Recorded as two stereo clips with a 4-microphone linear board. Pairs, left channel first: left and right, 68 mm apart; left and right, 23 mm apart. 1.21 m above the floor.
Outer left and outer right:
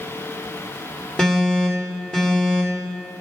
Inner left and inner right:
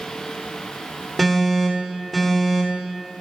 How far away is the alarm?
About 2.5 m.